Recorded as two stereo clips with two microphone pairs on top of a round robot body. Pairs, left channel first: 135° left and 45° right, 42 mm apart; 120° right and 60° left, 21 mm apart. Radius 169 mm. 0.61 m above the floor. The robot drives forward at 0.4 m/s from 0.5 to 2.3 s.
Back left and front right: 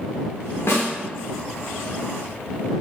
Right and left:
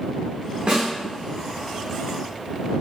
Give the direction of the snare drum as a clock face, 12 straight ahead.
9 o'clock.